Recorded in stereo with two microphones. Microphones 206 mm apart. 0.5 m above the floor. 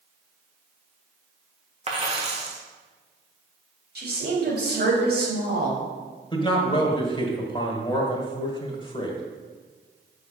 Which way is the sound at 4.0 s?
55° right (ahead or behind).